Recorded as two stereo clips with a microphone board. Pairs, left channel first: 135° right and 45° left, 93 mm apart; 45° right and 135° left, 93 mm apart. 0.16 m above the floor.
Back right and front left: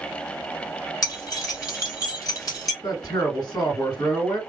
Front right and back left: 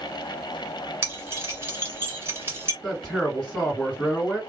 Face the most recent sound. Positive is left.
turn(degrees=-130)